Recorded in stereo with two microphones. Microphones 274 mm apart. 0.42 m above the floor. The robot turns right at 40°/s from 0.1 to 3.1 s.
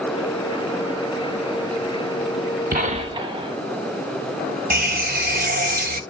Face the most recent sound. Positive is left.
turn(degrees=-35)  # may be behind; listen again after turning